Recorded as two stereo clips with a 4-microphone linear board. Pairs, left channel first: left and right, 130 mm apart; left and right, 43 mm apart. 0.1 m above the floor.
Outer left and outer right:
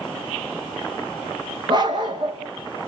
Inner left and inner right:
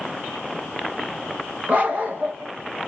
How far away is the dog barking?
About 3 m.